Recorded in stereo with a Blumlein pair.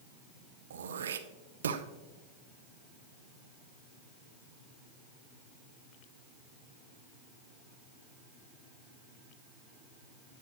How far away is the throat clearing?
About 0.7 m.